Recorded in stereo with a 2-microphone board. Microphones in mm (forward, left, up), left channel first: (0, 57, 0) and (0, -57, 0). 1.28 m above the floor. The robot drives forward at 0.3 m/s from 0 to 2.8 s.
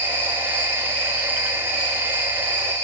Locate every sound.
0.0 s an insect: 85° right, 5 m; by 2.8 s 75° right (ahead or behind), 5.5 m